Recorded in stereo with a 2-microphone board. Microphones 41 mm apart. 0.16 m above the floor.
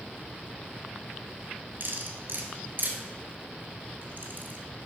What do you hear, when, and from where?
1.8 s cutlery clinking: 50° right (ahead or behind), 1.8 m